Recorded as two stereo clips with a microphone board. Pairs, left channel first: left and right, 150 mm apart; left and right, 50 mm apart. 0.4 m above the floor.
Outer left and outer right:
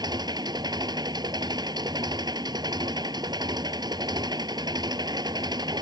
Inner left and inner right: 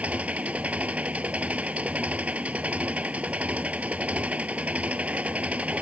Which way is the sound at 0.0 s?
30° right (ahead or behind).